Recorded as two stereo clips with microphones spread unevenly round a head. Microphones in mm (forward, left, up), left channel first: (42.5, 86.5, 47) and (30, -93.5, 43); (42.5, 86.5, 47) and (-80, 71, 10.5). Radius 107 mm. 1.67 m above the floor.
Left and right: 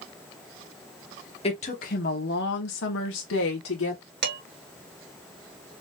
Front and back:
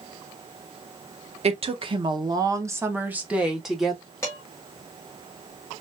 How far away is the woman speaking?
About 1.4 m.